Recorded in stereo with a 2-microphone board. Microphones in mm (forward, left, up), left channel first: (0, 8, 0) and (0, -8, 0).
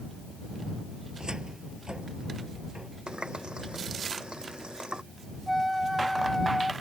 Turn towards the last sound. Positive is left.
turn(degrees=-5)  # may be behind; listen again after turning